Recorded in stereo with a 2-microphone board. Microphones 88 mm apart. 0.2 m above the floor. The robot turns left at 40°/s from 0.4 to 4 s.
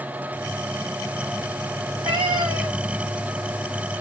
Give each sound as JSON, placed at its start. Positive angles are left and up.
{"t": 1.8, "sound": "a cat meowing", "azimuth_deg": -90, "distance_m": 2.5}